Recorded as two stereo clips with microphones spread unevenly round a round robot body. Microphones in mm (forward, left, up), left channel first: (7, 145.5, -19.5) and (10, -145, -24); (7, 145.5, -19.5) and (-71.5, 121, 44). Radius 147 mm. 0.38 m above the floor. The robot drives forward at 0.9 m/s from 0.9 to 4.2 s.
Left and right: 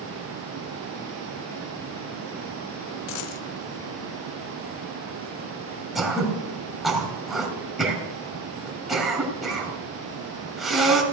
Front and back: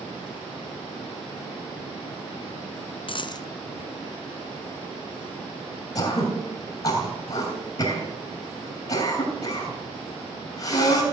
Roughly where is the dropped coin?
Ahead left.